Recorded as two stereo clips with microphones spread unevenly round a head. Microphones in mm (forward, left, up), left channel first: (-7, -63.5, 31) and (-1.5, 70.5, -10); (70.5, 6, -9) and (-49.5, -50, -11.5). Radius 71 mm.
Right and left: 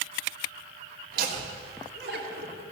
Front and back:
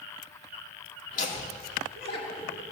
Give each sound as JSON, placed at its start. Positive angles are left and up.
{"t": 1.1, "sound": "laughter", "azimuth_deg": 65, "distance_m": 2.0}